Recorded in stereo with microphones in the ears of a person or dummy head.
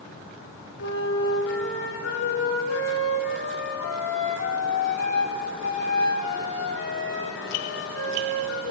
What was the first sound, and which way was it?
A flute, 75° left (ahead or behind).